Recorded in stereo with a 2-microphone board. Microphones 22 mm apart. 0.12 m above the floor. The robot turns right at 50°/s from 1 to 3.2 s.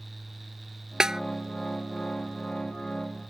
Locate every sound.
1.0 s a snare drum: 30° right (ahead or behind); by 1.2 s 25° right (ahead or behind)